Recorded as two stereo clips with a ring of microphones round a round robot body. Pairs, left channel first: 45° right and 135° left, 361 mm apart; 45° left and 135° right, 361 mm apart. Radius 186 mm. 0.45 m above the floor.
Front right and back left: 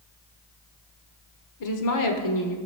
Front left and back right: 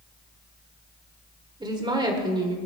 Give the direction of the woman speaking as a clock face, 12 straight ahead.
2 o'clock.